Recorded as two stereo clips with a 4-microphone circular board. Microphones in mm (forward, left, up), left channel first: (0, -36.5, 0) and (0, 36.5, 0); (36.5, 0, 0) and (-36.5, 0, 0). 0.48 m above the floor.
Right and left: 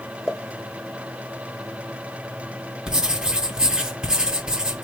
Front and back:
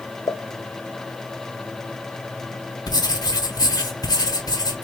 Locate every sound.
0.3 s a pop: straight ahead, 0.5 m
2.9 s writing: 10° left, 1.0 m